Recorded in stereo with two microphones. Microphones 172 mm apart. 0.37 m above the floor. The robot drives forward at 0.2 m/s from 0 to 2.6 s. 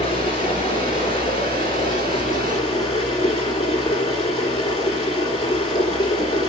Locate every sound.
0.0 s running water: 30° left (ahead or behind), 3.5 m; by 6.5 s 25° left (ahead or behind), 4 m